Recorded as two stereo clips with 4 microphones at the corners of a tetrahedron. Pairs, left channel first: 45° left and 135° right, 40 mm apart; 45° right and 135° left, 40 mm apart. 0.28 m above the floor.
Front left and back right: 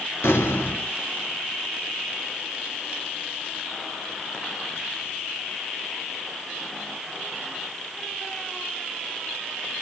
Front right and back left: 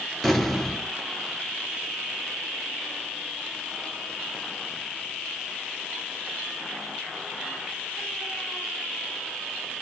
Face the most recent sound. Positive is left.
turn(degrees=40)